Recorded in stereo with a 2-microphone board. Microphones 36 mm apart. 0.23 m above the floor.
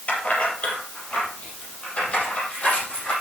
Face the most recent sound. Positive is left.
turn(degrees=35)  # may be behind; listen again after turning